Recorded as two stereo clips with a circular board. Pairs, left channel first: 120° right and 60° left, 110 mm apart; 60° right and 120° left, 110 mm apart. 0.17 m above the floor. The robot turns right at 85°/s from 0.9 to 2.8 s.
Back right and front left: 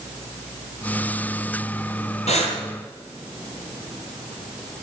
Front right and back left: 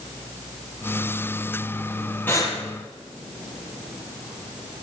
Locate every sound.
2.3 s breathing: 130° right, 3.5 m; by 2.6 s 105° right, 3.5 m